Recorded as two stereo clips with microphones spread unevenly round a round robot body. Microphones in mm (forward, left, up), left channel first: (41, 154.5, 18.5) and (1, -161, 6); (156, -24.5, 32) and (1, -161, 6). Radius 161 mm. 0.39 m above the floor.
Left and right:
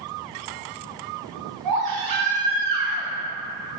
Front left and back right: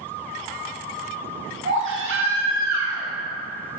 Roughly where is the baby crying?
Behind right.